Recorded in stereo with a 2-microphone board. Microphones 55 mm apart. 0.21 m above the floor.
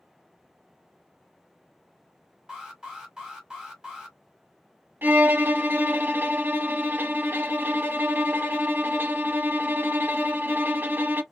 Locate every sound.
2.5 s an alarm: 15° right (ahead or behind), 1.8 m
5.0 s a violin: 40° right (ahead or behind), 0.6 m